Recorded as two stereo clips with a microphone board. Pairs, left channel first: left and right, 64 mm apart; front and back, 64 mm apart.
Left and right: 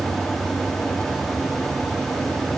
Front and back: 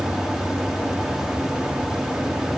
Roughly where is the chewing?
No chewing in this recording.